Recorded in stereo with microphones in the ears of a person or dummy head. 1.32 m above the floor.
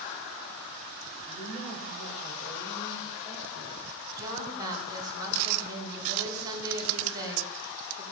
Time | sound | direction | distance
1.3 | a woman speaking | 50° left (ahead or behind) | 5 m
4.2 | a woman speaking | 20° right (ahead or behind) | 4.5 m